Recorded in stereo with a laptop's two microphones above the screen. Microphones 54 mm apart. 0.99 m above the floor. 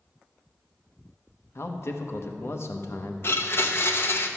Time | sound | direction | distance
1.6 | a man speaking | 50° left (ahead or behind) | 0.9 m
3.2 | a blender | 45° left (ahead or behind) | 0.6 m